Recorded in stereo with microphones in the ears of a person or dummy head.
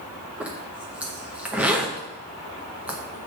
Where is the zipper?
Centre (ahead or behind), 0.8 m.